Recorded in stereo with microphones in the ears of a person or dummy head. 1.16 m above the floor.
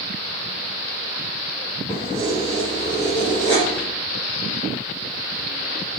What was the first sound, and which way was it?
Keys jangling, 5° left (ahead or behind).